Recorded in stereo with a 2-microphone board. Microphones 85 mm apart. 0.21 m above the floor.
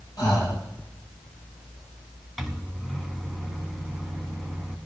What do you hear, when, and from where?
0.2 s breathing: 50° left (ahead or behind), 4.5 m
2.4 s a microwave: 5° right (ahead or behind), 1.2 m